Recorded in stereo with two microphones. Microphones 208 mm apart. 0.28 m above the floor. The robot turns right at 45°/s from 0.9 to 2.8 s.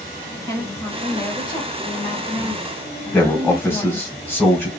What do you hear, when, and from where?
0.5 s a woman speaking: 15° left (ahead or behind), 1.2 m
3.1 s a man speaking: 10° left (ahead or behind), 1.5 m